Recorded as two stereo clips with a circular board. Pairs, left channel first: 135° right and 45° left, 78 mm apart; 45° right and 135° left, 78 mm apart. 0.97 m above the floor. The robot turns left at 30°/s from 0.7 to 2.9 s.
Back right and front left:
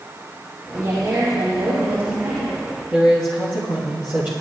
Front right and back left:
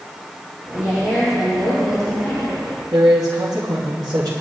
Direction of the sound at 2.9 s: 110° left.